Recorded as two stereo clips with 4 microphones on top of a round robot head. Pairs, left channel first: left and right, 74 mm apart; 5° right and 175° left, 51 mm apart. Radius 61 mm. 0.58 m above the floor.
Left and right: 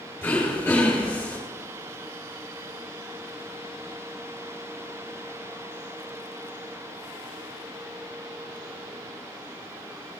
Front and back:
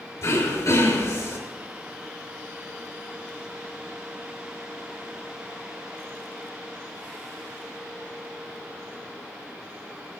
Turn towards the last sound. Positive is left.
turn(degrees=15)